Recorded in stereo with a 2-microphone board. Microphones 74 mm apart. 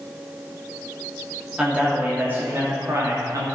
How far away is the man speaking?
About 3 m.